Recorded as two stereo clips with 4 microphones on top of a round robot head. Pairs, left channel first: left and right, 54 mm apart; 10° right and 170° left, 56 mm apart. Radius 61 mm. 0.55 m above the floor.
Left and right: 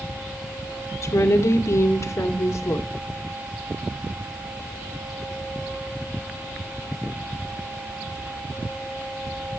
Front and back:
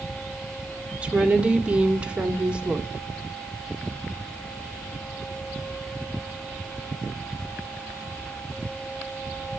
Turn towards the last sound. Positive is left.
turn(degrees=105)